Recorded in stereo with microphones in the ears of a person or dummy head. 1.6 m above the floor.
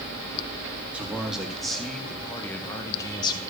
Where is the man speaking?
5° right (ahead or behind), 2.5 m; by 3.4 s 30° left (ahead or behind), 1.4 m.